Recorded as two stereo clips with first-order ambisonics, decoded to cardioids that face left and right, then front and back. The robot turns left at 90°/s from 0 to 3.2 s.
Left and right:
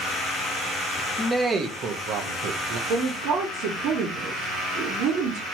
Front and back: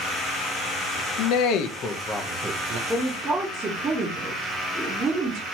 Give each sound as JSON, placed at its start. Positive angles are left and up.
{"t": 1.2, "sound": "a man speaking", "azimuth_deg": 10, "distance_m": 0.7}
{"t": 2.9, "sound": "a woman speaking", "azimuth_deg": -85, "distance_m": 2.0}